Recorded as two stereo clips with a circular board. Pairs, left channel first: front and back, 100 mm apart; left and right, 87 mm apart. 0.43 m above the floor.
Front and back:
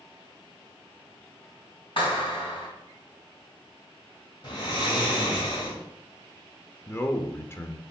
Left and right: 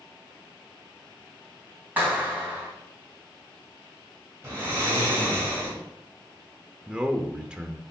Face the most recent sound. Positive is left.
turn(degrees=-25)